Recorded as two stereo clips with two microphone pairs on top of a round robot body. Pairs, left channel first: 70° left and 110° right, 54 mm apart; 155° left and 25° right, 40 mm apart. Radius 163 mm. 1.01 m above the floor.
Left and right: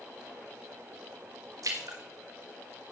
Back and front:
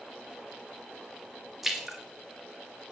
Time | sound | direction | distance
1.6 | a splash | 105° right | 3 m